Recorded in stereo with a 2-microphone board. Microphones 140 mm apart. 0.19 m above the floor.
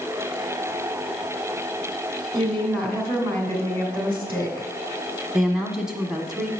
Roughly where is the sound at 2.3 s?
Centre.